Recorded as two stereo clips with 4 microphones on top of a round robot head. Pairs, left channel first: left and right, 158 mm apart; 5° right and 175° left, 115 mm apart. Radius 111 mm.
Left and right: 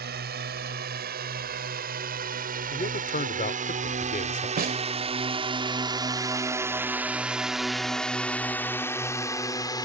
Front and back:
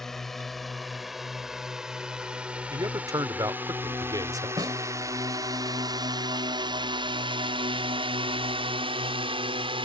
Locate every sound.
0.0 s a drone: 90° right; by 9.9 s 150° left
2.7 s a man speaking: 120° left
4.6 s a snare drum: 115° right